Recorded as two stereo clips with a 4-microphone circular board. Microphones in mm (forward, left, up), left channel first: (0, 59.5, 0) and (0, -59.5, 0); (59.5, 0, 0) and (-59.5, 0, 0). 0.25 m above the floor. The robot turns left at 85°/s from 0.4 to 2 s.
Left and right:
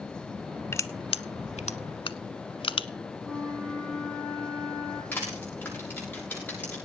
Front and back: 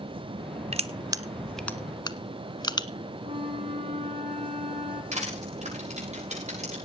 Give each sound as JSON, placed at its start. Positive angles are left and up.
{"t": 0.7, "sound": "crushing", "azimuth_deg": 160, "distance_m": 0.8}
{"t": 3.2, "sound": "a flute", "azimuth_deg": -175, "distance_m": 6.5}
{"t": 5.1, "sound": "crushing", "azimuth_deg": 165, "distance_m": 8.0}